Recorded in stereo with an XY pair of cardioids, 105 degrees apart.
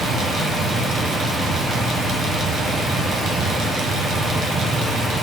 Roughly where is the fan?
Right.